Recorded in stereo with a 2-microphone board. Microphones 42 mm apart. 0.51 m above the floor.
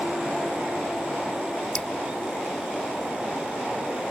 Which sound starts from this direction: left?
Dripping, at 1.8 s.